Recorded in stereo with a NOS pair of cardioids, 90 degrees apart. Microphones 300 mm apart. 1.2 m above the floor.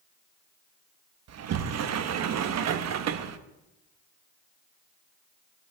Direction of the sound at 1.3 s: 60° right.